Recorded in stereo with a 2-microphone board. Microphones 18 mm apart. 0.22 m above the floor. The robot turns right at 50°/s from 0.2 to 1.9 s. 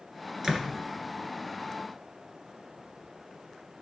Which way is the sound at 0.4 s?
25° right (ahead or behind).